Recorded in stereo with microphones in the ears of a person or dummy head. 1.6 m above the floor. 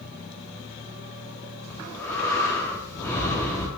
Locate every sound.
1.7 s breathing: 15° left (ahead or behind), 1.4 m